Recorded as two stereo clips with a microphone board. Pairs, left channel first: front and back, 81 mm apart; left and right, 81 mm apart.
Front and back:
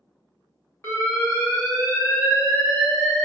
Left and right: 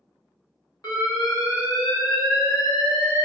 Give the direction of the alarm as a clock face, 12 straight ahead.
10 o'clock.